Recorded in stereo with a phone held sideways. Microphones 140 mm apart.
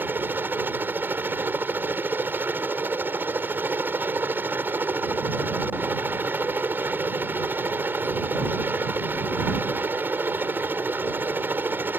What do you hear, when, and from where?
0.0 s a helicopter: 15° right (ahead or behind)